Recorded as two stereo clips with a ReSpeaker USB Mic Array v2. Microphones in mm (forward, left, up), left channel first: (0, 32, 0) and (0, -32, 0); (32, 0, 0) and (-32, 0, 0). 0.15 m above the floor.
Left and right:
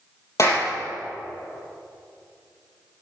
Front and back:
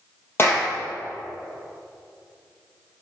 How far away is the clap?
About 3.5 m.